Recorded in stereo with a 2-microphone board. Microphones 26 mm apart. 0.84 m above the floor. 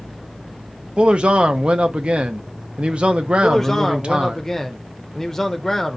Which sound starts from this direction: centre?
A man speaking, at 3.4 s.